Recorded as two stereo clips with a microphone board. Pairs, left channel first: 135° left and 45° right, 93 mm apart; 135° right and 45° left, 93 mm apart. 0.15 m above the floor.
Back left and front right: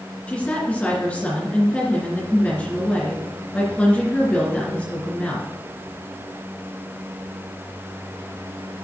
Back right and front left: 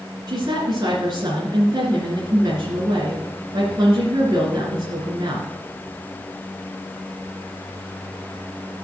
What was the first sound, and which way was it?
A woman speaking, 65° left.